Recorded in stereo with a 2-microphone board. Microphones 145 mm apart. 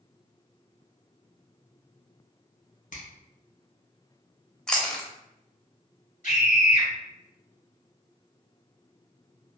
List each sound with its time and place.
2.9 s a finger snap: 60° left (ahead or behind), 1.0 m
4.7 s chewing: 5° left (ahead or behind), 0.6 m
6.2 s a scream: 55° left (ahead or behind), 1.7 m